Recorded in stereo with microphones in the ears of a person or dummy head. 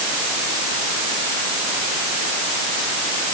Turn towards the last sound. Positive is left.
No sound to turn to.